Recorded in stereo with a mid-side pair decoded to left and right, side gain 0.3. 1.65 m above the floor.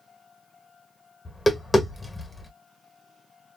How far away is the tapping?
About 1.2 m.